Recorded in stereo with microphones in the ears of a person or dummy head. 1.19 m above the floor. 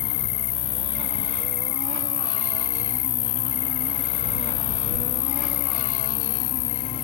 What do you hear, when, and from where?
0.0 s an insect: 55° left (ahead or behind)